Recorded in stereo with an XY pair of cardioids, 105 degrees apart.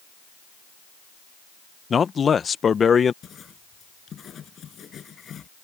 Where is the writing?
50° left.